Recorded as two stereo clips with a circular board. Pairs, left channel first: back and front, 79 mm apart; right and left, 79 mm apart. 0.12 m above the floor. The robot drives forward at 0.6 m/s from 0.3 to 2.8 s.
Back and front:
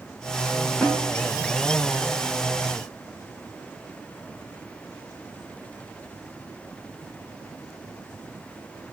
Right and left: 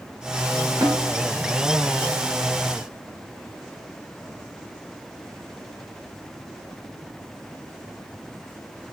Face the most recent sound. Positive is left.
turn(degrees=125)